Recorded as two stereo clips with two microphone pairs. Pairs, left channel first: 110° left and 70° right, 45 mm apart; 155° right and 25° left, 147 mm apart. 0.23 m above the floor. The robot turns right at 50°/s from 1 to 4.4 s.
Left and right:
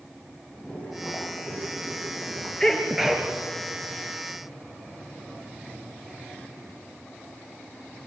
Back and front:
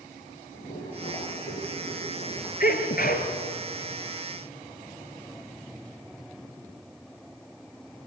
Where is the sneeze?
170° right, 4 m; by 3.3 s 135° right, 4 m.